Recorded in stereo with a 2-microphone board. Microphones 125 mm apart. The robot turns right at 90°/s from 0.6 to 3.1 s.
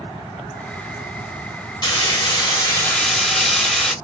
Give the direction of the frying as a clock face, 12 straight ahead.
10 o'clock.